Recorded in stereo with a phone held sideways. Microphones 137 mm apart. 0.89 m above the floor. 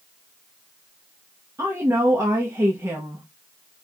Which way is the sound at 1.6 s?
20° right (ahead or behind).